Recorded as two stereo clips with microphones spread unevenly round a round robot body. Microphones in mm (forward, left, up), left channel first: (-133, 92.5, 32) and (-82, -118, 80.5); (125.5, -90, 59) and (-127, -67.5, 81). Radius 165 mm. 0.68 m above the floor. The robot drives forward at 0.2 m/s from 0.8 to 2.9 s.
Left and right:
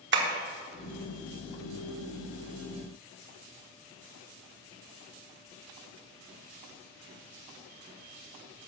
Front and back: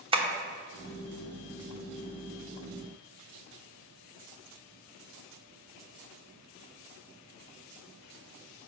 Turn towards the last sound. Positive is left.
turn(degrees=-130)